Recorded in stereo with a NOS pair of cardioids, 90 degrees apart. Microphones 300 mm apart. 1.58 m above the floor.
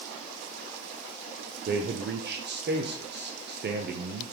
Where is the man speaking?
35° right, 0.7 m.